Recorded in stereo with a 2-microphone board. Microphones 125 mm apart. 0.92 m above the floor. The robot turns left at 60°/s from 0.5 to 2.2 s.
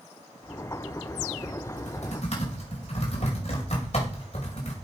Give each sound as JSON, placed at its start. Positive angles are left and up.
{"t": 1.7, "sound": "typing on a keyboard", "side_deg": 80, "distance_m": 5.0}